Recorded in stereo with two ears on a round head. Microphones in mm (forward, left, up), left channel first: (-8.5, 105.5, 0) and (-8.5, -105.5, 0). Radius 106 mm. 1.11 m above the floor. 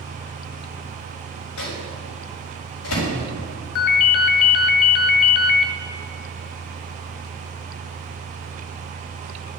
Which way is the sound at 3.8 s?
60° left (ahead or behind).